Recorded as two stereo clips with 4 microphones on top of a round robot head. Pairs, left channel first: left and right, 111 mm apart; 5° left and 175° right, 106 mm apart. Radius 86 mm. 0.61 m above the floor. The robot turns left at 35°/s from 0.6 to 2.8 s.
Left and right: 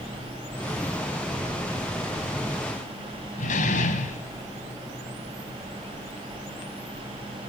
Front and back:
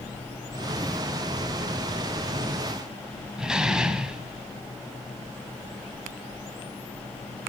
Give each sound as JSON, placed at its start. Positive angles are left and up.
{"t": 3.4, "sound": "a door slam", "azimuth_deg": 105, "distance_m": 3.0}